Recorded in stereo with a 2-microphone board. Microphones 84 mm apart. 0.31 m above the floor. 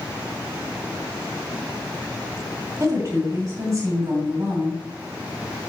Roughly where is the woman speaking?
Right.